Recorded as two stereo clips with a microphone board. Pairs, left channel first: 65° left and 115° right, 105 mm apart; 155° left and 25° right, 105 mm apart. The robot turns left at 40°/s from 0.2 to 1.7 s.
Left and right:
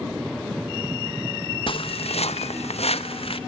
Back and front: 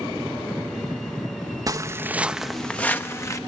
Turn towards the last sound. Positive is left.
turn(degrees=100)